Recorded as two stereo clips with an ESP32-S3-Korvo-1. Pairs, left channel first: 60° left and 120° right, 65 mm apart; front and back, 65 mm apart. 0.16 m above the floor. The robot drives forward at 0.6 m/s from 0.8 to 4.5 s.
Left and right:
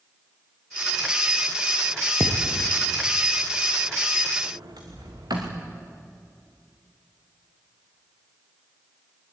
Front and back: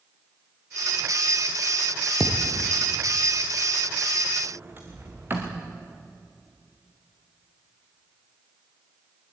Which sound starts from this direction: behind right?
A sliding door, at 4.4 s.